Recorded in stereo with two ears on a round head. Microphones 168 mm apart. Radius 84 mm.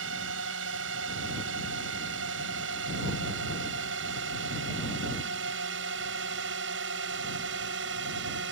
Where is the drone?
70° right (ahead or behind); by 8.5 s 65° right (ahead or behind).